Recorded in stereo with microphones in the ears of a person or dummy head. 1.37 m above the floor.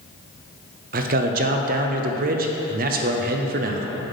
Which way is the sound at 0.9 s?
45° right (ahead or behind).